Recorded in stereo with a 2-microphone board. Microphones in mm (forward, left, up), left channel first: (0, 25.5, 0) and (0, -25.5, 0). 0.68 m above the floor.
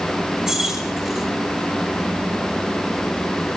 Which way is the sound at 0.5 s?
10° right (ahead or behind).